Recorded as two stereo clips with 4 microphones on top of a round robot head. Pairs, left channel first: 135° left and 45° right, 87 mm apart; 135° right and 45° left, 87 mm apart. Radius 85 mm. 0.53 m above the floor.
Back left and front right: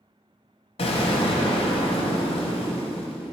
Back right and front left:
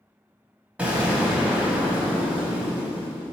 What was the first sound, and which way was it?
An explosion, 120° left.